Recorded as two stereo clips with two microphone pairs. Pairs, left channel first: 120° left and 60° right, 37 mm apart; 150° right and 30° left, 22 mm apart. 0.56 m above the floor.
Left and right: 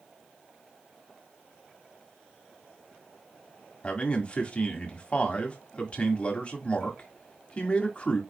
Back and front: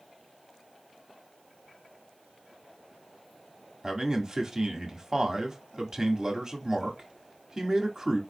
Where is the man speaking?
80° left, 1.5 m.